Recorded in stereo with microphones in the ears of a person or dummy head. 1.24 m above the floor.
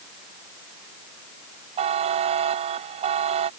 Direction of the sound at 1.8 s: 40° right (ahead or behind).